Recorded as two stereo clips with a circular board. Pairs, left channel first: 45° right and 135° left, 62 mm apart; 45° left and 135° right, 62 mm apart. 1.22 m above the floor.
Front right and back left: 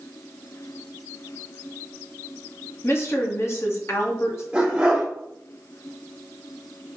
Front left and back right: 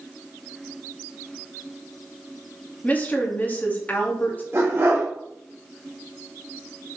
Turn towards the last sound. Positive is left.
turn(degrees=-160)